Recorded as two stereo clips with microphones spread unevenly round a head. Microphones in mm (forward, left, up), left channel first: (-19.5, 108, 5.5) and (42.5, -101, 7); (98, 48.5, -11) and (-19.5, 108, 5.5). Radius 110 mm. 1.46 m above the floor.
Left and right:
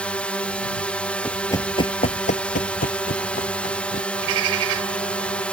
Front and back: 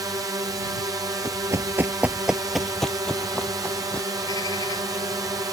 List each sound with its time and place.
0.0 s a drone: straight behind
1.2 s running footsteps: 170° right; by 4.0 s 55° left
4.1 s a bird: 100° right